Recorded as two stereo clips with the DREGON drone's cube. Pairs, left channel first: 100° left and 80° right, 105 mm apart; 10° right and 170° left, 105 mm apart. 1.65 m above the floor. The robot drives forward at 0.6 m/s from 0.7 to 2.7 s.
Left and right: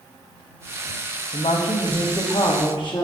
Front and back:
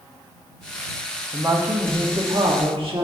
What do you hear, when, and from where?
1.3 s a woman speaking: 100° left, 0.9 m; by 3.0 s 140° left, 1.3 m